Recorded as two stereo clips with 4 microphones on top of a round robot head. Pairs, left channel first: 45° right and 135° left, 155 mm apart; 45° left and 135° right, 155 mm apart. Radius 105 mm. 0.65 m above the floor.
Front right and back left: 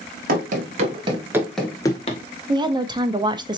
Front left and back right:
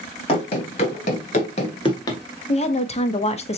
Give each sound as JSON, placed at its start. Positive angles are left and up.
{"t": 0.3, "sound": "running footsteps", "azimuth_deg": 105, "distance_m": 1.0}
{"t": 2.5, "sound": "a woman speaking", "azimuth_deg": 80, "distance_m": 0.8}